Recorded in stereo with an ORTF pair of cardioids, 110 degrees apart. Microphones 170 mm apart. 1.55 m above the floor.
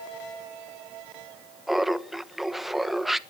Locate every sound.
1.7 s laughter: straight ahead, 1.2 m